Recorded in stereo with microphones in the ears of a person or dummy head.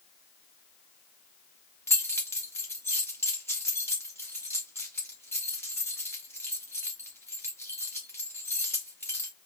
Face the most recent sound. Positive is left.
turn(degrees=10)  # may be behind; listen again after turning